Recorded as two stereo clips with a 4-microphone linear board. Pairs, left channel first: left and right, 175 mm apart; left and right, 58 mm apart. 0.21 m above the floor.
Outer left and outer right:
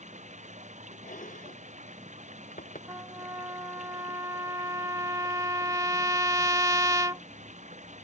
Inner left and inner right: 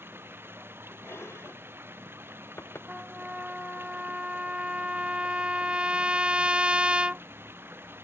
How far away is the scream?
I don't hear a scream.